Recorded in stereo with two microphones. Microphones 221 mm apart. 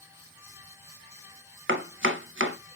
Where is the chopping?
60° right (ahead or behind), 0.6 m.